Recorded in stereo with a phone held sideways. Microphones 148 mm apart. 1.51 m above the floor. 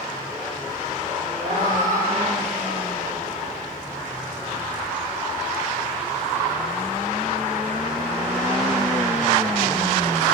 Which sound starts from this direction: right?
A cat meowing, at 1.4 s.